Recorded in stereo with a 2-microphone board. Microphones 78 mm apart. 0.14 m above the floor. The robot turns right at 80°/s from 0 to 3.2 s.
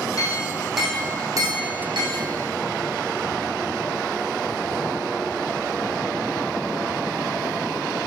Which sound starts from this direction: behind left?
A clink, at 0.2 s.